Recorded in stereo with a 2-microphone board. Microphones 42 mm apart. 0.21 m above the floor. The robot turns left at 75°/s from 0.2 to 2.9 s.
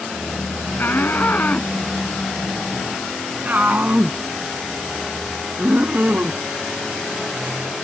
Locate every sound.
0.8 s a shout: 50° left (ahead or behind); by 6.4 s 40° right (ahead or behind)